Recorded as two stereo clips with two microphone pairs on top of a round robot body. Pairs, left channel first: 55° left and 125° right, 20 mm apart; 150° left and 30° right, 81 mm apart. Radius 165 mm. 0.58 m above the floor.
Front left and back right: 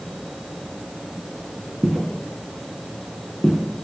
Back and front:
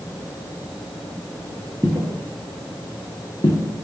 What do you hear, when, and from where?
1.8 s footsteps: 105° right, 0.6 m; by 3.6 s 100° left, 0.9 m